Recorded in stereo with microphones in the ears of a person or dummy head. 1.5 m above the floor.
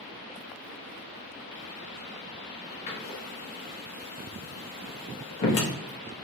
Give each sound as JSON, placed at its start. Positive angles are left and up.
{"t": 2.9, "sound": "a door slam", "side_deg": 35, "distance_m": 0.9}